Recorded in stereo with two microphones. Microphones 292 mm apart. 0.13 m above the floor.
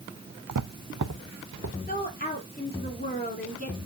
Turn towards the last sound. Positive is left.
turn(degrees=30)  # may be behind; listen again after turning